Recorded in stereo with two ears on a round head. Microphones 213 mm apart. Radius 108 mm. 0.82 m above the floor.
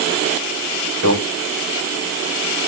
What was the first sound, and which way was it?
A microwave, 65° right (ahead or behind).